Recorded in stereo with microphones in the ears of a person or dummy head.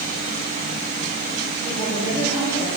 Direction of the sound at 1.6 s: 25° right (ahead or behind).